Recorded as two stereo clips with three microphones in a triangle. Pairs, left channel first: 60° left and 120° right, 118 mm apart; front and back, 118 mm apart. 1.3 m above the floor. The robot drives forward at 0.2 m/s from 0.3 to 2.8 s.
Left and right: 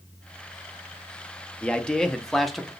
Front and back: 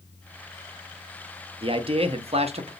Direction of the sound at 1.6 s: 140° left.